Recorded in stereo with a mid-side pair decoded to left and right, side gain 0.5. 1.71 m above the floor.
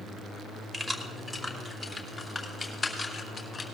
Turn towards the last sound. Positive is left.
turn(degrees=20)